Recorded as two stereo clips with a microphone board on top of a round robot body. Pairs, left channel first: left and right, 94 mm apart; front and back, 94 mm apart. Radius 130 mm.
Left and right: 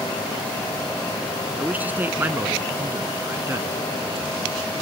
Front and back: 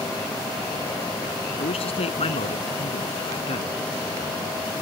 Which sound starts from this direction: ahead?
A man speaking, at 1.6 s.